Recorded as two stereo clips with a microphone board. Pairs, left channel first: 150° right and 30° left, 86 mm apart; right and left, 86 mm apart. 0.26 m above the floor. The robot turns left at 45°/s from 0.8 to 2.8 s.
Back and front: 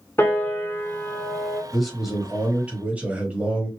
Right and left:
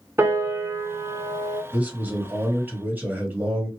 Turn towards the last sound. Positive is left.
turn(degrees=75)